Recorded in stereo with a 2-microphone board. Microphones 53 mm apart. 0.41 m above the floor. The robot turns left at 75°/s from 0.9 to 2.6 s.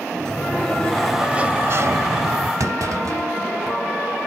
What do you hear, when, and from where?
0.1 s a sliding door: 15° left, 0.5 m; by 2.5 s 105° right, 0.5 m
2.6 s a clunk: 80° right, 0.8 m